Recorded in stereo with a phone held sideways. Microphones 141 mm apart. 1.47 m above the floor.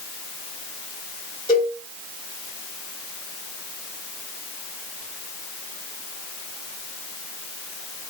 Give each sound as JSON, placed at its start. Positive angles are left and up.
{"t": 1.5, "sound": "a cowbell", "side_deg": 40, "distance_m": 2.0}